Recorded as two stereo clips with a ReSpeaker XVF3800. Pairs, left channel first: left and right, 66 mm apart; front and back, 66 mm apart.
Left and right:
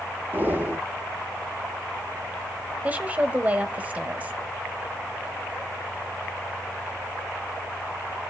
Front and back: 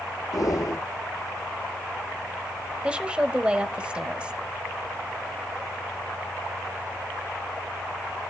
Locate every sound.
0.3 s breathing: 30° right, 2 m
2.8 s a woman speaking: 125° right, 1.2 m